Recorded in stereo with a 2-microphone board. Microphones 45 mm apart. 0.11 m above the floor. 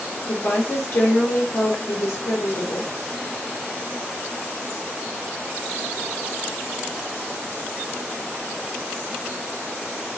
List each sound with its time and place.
0.3 s a woman speaking: 55° left (ahead or behind), 2.5 m